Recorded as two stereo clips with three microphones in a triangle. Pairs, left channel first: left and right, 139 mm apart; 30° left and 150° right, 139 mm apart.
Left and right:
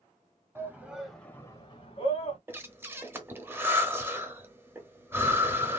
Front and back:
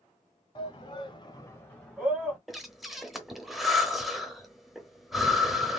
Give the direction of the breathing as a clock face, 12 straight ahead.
2 o'clock.